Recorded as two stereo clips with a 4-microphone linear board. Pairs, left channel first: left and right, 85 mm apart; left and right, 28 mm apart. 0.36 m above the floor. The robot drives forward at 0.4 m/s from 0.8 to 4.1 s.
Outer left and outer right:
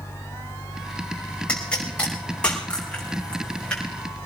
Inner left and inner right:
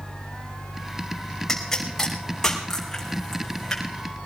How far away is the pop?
About 5 m.